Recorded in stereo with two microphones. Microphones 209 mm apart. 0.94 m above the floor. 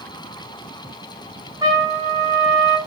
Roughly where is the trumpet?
Centre.